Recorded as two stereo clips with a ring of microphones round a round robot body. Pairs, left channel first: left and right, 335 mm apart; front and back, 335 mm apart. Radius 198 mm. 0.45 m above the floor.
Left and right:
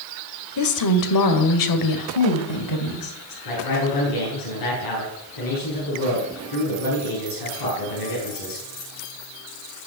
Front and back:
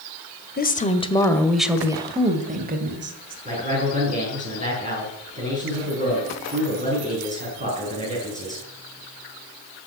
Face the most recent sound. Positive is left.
turn(degrees=115)